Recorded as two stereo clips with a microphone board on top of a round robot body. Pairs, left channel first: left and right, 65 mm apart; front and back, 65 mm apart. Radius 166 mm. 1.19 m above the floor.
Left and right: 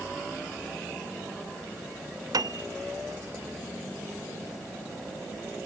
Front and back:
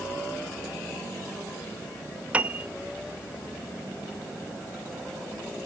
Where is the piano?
110° right, 0.6 m.